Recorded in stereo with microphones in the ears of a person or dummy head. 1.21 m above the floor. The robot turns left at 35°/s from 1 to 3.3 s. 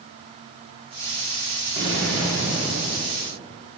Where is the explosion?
70° right, 2.0 m; by 3.2 s 115° right, 2.0 m.